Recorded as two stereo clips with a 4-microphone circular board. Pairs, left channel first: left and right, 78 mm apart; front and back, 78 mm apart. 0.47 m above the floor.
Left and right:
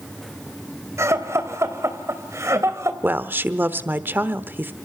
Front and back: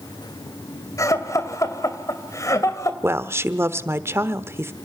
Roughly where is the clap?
No clap in this recording.